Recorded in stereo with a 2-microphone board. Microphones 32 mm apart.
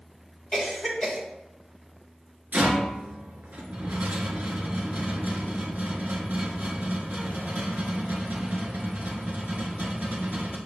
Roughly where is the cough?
Centre.